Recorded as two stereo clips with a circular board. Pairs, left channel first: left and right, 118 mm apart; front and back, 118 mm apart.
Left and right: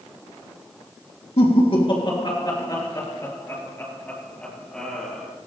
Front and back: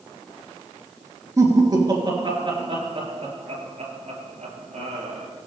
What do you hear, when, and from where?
1.4 s laughter: 120° left, 3.5 m; by 5.3 s straight behind, 5.5 m